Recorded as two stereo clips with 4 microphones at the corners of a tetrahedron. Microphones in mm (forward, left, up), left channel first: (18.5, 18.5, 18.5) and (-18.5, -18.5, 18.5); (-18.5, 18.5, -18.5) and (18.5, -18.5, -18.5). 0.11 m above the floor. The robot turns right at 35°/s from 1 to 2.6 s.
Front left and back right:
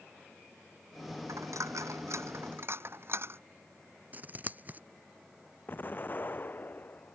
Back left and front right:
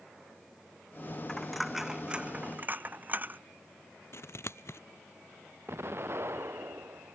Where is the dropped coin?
145° right; by 3.4 s 100° right.